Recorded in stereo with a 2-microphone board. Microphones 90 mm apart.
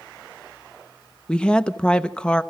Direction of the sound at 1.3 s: 10° left (ahead or behind).